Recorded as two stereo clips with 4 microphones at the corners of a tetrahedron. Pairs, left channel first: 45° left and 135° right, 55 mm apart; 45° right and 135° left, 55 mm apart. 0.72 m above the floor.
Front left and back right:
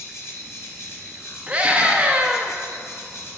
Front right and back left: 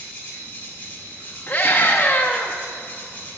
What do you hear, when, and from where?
0.0 s an insect: 15° left, 1.7 m
1.5 s a scream: 75° right, 0.7 m